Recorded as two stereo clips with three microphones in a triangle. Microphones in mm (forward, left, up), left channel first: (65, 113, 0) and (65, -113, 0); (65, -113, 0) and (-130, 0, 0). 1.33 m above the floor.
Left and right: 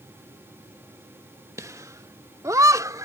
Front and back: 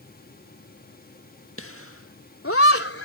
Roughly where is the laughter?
Ahead.